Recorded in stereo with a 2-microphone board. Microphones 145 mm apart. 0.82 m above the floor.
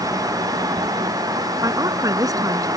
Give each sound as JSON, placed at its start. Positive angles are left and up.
{"t": 1.6, "sound": "a woman speaking", "side_deg": -25}